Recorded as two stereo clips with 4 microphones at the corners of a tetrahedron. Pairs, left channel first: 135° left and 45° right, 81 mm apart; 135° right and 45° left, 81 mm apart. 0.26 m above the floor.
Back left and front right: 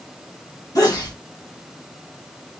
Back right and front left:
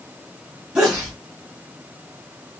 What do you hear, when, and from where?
0.8 s a sneeze: 120° left, 1.5 m